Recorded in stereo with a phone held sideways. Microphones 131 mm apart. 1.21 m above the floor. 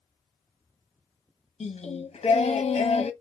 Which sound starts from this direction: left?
Singing, at 1.6 s.